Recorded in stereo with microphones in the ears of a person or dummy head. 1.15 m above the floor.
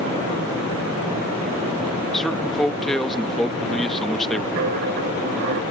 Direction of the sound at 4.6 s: 45° right (ahead or behind).